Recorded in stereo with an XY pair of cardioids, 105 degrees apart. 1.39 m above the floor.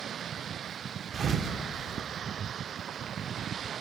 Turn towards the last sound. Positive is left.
turn(degrees=-40)